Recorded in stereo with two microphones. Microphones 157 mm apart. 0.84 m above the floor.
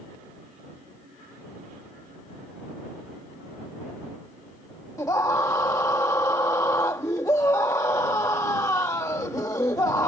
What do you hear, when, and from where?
5.0 s a scream: 20° left (ahead or behind)